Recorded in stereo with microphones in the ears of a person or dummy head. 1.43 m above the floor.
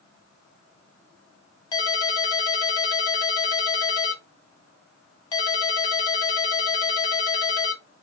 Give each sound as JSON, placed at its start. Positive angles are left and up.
{"t": 1.7, "sound": "a ringtone", "side_deg": 20, "distance_m": 1.1}